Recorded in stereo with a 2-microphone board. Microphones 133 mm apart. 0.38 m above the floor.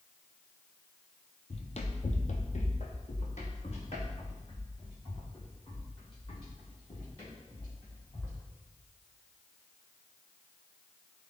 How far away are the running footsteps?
About 0.7 m.